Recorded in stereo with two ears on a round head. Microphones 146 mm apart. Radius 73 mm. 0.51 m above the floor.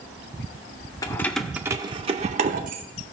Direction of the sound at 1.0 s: 20° left (ahead or behind).